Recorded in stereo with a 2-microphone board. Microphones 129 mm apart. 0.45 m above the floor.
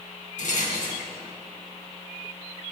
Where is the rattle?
75° left (ahead or behind), 2 m.